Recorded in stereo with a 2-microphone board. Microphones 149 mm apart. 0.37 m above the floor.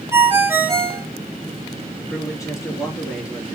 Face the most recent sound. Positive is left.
turn(degrees=20)  # may be behind; listen again after turning